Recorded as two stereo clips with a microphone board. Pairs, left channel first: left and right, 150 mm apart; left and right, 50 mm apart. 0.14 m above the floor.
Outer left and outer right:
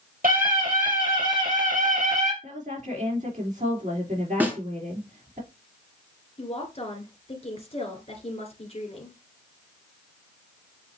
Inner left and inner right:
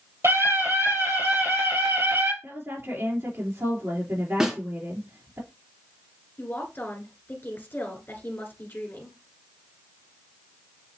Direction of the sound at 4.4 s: 10° right (ahead or behind).